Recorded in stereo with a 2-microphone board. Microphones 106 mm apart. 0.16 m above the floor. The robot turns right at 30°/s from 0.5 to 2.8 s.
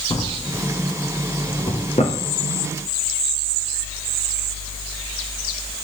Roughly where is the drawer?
Left.